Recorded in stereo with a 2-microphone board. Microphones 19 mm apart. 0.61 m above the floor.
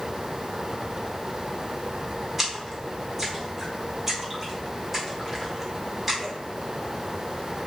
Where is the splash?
15° right (ahead or behind), 1.0 m.